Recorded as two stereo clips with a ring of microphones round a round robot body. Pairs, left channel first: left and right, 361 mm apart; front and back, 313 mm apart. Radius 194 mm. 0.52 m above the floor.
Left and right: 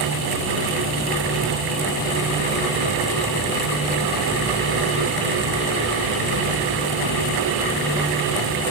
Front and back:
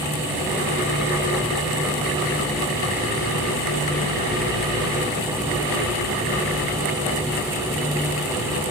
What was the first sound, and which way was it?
Only background noise.